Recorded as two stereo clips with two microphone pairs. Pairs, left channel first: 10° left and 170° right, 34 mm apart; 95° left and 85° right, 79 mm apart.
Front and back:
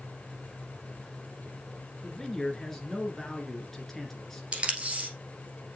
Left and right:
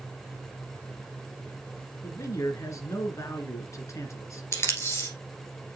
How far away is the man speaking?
About 1.7 m.